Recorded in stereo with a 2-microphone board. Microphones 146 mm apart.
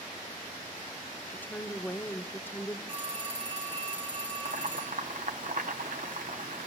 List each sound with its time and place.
1.3 s a woman speaking: 15° left (ahead or behind), 0.8 m
2.9 s a phone ringing: 40° right (ahead or behind), 5 m
4.5 s boiling: 65° right (ahead or behind), 1.4 m